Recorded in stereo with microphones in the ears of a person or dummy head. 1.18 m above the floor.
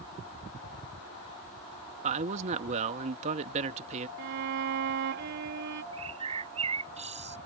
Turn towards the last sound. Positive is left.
turn(degrees=-35)  # may be behind; listen again after turning